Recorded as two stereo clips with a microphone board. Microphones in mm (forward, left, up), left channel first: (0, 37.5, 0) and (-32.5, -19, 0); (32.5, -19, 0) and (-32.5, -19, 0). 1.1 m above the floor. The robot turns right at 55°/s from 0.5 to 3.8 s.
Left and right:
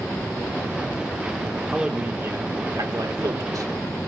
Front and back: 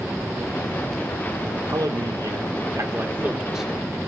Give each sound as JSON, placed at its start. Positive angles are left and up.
{"t": 1.7, "sound": "a man speaking", "azimuth_deg": 155, "distance_m": 3.0}